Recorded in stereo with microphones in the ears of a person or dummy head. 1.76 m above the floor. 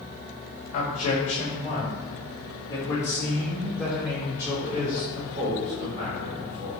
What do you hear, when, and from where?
0.7 s a man speaking: 40° left (ahead or behind), 3.5 m; by 6.7 s 40° right (ahead or behind), 3.5 m